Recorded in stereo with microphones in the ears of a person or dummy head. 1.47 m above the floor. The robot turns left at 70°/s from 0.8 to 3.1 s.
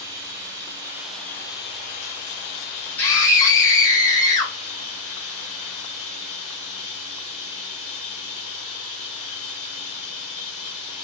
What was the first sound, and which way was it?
Running water, 160° right.